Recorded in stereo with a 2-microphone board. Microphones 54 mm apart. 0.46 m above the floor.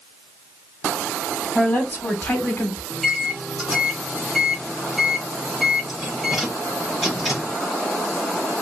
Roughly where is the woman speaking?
Centre.